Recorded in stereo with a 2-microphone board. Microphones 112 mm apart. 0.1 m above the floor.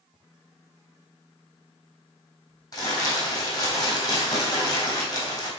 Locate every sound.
2.7 s crumpling: 35° left (ahead or behind), 3 m